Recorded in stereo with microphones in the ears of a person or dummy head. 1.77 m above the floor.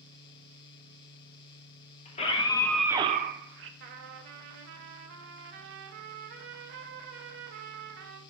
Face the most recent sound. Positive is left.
turn(degrees=-50)  # may be behind; listen again after turning